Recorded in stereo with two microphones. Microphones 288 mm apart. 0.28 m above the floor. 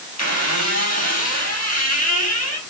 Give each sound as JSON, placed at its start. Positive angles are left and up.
{"t": 0.2, "sound": "a squeak", "side_deg": 60, "distance_m": 4.0}